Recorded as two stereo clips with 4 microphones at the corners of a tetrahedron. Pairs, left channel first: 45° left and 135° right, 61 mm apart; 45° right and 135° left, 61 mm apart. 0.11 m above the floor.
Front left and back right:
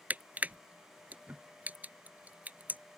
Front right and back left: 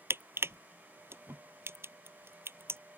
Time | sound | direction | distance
0.1 | crushing | 170° left | ?